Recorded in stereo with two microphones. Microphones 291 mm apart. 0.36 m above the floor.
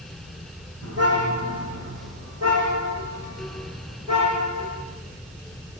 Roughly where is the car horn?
Right.